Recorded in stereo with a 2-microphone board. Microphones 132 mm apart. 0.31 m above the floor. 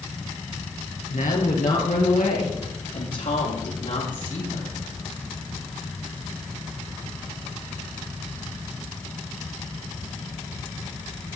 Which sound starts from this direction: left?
A woman speaking, at 1.1 s.